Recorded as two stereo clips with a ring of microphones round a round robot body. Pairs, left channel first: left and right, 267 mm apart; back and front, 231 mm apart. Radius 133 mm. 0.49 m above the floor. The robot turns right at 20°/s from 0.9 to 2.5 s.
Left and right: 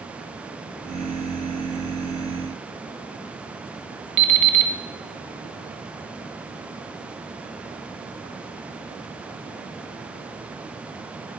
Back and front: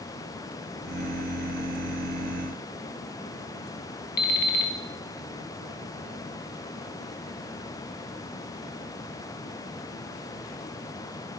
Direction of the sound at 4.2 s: 130° right.